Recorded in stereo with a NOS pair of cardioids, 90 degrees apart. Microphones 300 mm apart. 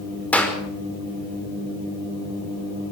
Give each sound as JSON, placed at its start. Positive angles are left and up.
{"t": 0.3, "sound": "a clap", "azimuth_deg": 5, "distance_m": 5.5}